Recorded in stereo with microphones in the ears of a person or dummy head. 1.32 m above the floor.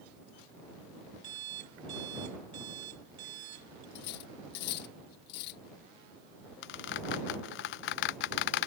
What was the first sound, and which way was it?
An alarm clock, 60° right (ahead or behind).